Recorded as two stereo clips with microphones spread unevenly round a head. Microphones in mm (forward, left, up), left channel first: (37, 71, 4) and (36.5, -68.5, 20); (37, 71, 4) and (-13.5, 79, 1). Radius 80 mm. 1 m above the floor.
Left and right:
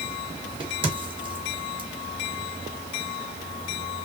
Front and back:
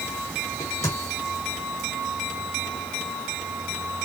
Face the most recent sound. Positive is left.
turn(degrees=-35)